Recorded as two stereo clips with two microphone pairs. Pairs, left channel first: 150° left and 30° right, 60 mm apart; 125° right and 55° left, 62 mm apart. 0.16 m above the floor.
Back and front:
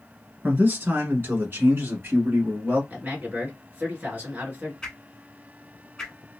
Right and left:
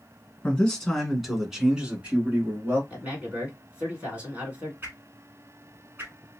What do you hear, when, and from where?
0.4 s a man speaking: 60° right, 1.3 m; by 2.8 s 10° left, 1.6 m
2.9 s a man speaking: 5° left, 1.8 m
4.8 s a whoosh: 75° left, 0.9 m